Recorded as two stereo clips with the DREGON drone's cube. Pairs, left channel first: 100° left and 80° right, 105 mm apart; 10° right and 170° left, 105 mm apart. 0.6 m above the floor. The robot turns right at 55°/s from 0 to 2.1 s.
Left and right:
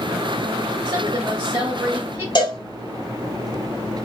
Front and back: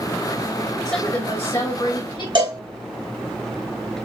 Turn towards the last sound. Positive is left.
turn(degrees=135)